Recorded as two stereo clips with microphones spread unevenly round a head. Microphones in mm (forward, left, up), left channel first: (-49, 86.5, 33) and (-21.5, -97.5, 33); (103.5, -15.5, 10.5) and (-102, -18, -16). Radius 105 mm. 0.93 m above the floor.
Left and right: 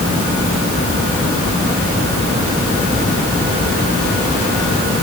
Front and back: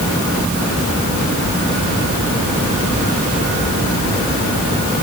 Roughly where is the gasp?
No gasp in this recording.